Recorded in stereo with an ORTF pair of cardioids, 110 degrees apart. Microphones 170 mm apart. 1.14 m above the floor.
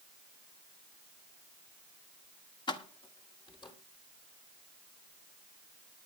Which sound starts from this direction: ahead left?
Keys jangling, at 2.7 s.